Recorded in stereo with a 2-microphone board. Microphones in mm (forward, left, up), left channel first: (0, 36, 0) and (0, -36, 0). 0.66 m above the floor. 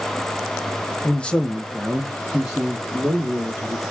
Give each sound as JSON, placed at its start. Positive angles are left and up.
{"t": 1.0, "sound": "a man speaking", "side_deg": 20, "distance_m": 0.5}